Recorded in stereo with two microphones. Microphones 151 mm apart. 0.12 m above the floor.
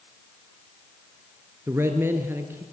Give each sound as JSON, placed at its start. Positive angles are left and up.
{"t": 1.7, "sound": "a man speaking", "side_deg": -15, "distance_m": 2.5}